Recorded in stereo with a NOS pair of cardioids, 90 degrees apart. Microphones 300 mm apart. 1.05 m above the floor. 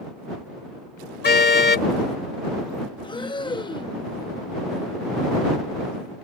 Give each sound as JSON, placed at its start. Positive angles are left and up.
{"t": 1.2, "sound": "a car horn", "azimuth_deg": 35}
{"t": 3.0, "sound": "breathing", "azimuth_deg": 15}